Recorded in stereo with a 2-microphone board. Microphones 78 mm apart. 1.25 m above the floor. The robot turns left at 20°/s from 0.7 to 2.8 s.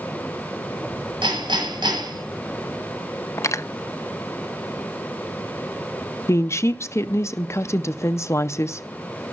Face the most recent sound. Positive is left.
turn(degrees=35)  # may be behind; listen again after turning